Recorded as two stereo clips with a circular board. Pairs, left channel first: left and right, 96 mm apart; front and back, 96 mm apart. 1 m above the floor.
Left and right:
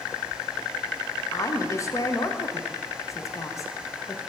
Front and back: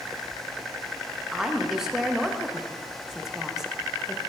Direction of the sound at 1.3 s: 100° left.